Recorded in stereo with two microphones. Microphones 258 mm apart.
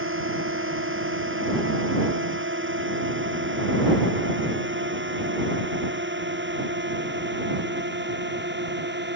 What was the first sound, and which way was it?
A drone, 50° right (ahead or behind).